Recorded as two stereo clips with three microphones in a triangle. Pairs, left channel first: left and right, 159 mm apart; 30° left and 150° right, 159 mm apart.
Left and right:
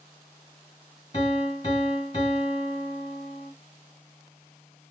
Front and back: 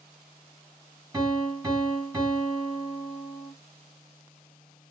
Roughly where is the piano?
Behind left.